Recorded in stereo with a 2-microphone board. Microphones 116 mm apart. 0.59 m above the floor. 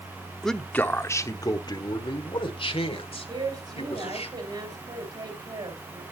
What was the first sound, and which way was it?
A man speaking, centre (ahead or behind).